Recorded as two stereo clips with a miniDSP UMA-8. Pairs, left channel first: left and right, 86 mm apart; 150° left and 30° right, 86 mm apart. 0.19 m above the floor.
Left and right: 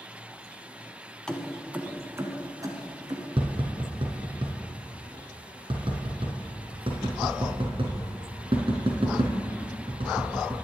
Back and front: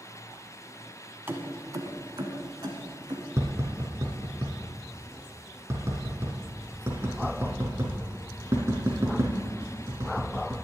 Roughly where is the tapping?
Right.